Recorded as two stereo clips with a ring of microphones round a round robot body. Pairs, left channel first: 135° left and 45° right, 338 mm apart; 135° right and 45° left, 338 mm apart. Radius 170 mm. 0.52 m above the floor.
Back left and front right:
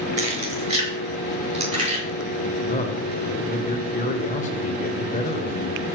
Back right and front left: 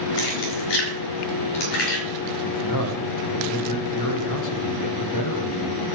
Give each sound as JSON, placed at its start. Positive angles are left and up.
{"t": 0.2, "sound": "keys jangling", "azimuth_deg": -115, "distance_m": 6.0}
{"t": 2.4, "sound": "a man speaking", "azimuth_deg": -160, "distance_m": 2.5}